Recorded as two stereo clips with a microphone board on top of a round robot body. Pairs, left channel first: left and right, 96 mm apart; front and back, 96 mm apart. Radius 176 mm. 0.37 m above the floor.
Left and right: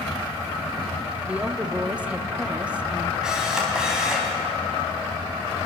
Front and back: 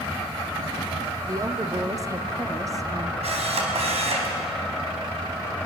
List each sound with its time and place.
1.3 s a woman speaking: 160° right, 1.5 m
3.2 s a camera shutter: 175° right, 3.5 m